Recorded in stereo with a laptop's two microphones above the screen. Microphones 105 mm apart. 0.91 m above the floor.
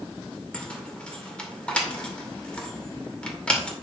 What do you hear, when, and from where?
0.5 s keys jangling: 10° left (ahead or behind), 2 m